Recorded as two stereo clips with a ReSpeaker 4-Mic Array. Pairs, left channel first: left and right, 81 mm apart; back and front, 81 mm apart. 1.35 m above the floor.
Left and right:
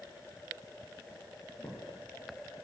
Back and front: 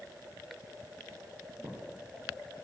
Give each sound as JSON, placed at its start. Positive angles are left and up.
{"t": 1.6, "sound": "a thud", "azimuth_deg": 30, "distance_m": 8.5}